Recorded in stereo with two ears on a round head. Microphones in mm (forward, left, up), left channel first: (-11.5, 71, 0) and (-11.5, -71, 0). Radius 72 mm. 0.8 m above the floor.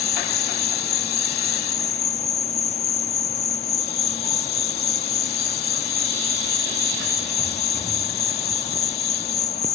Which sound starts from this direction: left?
An insect, at 0.0 s.